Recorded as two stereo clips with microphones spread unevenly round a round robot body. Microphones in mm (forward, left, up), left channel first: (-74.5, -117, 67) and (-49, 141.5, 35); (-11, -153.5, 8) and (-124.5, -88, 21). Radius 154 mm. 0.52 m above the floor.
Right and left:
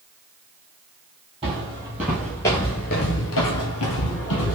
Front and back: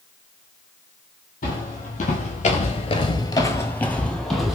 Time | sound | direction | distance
1.4 | footsteps | 10° left | 1.0 m